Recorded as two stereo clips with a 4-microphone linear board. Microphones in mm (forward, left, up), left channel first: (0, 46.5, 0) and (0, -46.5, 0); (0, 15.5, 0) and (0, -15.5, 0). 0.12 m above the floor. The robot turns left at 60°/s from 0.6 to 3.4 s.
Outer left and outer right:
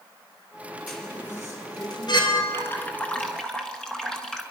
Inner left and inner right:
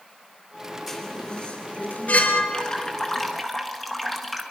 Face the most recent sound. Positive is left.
turn(degrees=10)  # may be behind; listen again after turning